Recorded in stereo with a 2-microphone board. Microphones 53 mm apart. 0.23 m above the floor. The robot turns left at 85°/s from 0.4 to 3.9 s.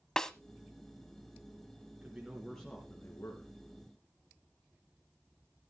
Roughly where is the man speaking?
Behind right.